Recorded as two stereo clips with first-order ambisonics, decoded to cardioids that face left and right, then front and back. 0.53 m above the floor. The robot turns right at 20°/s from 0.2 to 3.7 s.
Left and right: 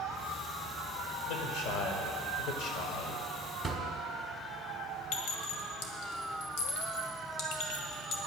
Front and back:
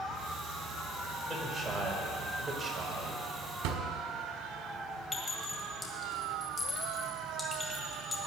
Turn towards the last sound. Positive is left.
turn(degrees=75)